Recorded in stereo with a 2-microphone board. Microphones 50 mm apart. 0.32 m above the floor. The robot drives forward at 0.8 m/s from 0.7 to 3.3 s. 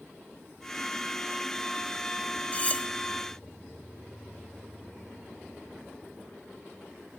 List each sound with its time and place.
2.5 s cutlery clinking: 30° left (ahead or behind), 0.7 m; by 2.9 s 20° left (ahead or behind), 0.8 m